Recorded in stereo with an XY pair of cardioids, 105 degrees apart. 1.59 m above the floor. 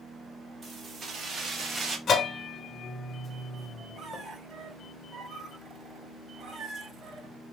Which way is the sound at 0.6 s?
40° right.